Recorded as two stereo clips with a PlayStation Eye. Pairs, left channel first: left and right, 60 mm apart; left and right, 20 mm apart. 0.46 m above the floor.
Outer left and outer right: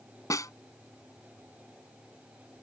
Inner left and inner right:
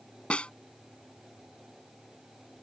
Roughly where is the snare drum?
Left.